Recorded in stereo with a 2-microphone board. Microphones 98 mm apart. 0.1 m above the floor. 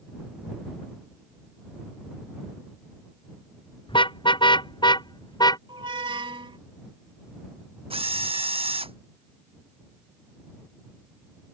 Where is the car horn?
60° left (ahead or behind); by 5.6 s 45° left (ahead or behind).